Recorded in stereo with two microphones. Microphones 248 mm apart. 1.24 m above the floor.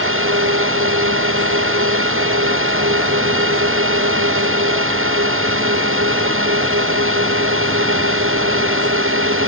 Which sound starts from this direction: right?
A drone, at 0.0 s.